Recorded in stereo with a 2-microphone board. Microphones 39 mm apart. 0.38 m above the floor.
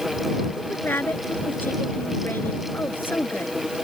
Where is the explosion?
I don't hear an explosion.